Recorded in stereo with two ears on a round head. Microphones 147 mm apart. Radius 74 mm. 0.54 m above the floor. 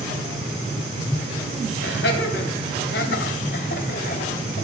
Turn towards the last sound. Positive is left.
turn(degrees=45)  # may be behind; listen again after turning